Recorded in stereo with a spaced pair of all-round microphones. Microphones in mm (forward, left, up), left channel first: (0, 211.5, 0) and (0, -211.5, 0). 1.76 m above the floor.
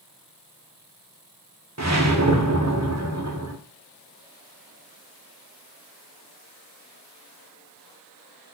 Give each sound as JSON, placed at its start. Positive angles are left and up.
{"t": 1.8, "sound": "a whoosh", "side_deg": -40, "distance_m": 1.5}